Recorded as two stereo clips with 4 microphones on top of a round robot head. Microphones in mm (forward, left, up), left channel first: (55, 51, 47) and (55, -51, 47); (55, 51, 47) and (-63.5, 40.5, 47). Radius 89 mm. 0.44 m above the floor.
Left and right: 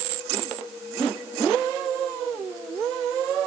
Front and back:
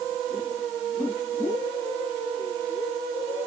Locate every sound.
Only background noise.